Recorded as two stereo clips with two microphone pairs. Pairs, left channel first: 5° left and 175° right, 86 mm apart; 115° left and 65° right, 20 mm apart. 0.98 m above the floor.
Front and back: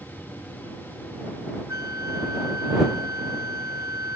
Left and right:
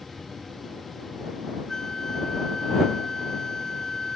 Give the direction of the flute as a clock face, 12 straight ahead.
6 o'clock.